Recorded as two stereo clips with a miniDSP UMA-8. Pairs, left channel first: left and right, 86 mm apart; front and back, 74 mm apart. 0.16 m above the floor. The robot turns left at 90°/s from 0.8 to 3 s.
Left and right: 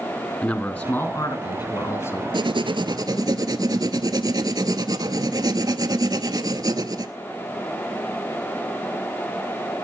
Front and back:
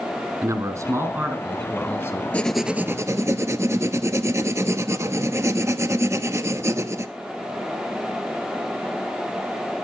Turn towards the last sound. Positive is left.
turn(degrees=-130)